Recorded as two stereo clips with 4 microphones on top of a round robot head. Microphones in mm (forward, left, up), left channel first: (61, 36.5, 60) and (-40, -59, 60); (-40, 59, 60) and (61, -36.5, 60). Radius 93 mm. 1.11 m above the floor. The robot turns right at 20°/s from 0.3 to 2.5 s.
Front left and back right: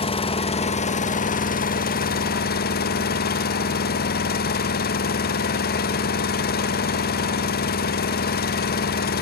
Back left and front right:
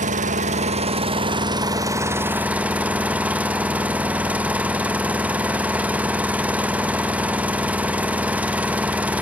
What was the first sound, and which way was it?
An engine running, 5° right.